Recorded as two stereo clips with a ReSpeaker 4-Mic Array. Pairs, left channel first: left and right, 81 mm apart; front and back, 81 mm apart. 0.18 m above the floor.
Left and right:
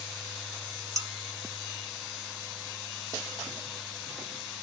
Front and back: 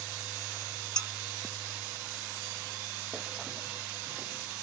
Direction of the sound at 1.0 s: 75° right.